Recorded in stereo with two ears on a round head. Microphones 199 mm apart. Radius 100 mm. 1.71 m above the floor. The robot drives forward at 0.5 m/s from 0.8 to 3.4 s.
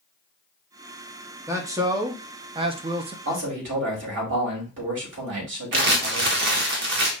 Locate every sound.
1.5 s a man speaking: 15° right (ahead or behind), 1.0 m; by 3.1 s 25° right (ahead or behind), 0.5 m
3.2 s a man speaking: 60° right (ahead or behind), 2.5 m
5.7 s crumpling: 50° right (ahead or behind), 1.2 m